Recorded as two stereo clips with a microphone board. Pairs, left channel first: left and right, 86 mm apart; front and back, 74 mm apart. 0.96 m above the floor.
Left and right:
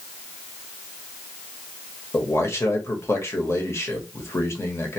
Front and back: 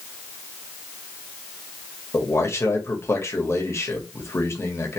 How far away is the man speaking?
About 1.3 m.